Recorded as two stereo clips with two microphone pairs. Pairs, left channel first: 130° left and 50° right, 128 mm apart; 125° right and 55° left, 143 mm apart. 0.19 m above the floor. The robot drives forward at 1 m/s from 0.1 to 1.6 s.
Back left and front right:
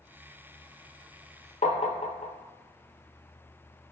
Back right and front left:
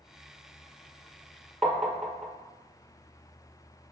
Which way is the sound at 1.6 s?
145° left.